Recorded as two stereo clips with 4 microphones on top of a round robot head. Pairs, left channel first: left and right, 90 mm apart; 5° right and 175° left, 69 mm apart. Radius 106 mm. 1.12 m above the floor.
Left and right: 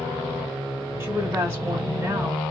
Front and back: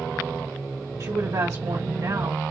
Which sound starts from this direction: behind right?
A woman speaking, at 1.0 s.